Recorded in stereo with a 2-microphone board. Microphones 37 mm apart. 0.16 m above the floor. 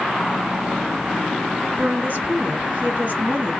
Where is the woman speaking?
55° right (ahead or behind), 2 m.